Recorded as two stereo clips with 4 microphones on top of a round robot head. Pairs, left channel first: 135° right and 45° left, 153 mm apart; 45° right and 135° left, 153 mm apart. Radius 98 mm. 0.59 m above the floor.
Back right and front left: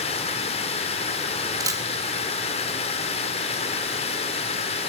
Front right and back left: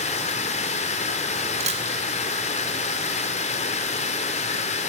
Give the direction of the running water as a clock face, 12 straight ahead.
3 o'clock.